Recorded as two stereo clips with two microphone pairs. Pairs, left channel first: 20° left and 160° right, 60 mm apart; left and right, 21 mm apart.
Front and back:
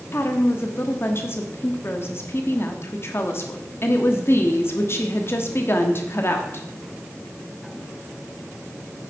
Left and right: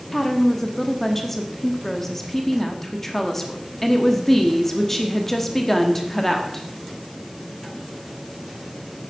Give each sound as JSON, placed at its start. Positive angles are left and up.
{"t": 0.1, "sound": "a woman speaking", "azimuth_deg": 20, "distance_m": 1.2}